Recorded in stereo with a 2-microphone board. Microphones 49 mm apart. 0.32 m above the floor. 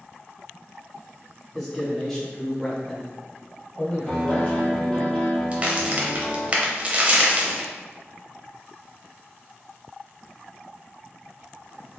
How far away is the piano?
About 1.7 m.